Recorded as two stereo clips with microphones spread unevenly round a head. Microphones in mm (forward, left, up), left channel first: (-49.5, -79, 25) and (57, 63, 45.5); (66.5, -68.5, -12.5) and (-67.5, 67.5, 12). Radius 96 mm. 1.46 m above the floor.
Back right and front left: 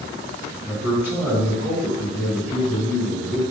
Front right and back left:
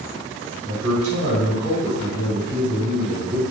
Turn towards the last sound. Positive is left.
turn(degrees=130)